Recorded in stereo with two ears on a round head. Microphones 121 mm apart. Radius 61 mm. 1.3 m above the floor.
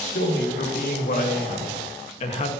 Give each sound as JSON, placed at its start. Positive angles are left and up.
{"t": 0.1, "sound": "a man speaking", "side_deg": 80, "distance_m": 2.5}